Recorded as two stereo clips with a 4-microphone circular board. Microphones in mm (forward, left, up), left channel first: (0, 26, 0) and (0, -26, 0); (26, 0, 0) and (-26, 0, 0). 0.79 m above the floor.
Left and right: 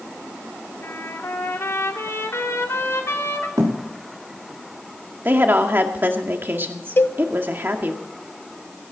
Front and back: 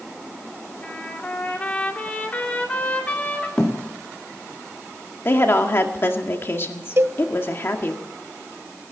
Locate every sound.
0.8 s a trumpet: 60° left, 2.5 m
3.6 s a thud: 70° right, 4.5 m
5.2 s a woman speaking: 40° right, 1.8 m
7.0 s a cowbell: 140° left, 0.6 m